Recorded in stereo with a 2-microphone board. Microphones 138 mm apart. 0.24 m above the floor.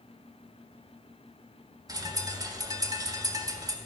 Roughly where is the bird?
Right.